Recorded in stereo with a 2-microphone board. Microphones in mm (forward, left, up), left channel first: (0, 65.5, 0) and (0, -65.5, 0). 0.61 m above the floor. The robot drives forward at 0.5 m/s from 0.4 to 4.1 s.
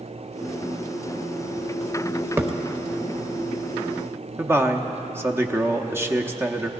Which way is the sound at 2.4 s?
20° right (ahead or behind).